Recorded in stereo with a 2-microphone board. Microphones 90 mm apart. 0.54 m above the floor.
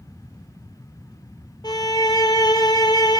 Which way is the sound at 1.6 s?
50° left (ahead or behind).